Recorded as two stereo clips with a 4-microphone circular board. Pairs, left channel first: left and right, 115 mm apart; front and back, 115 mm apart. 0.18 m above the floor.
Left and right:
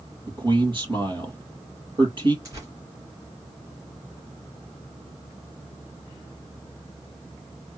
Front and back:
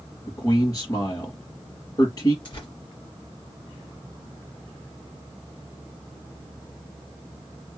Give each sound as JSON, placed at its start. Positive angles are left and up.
{"t": 0.3, "sound": "a man speaking", "azimuth_deg": -50, "distance_m": 3.0}
{"t": 2.5, "sound": "tearing paper", "azimuth_deg": -35, "distance_m": 2.5}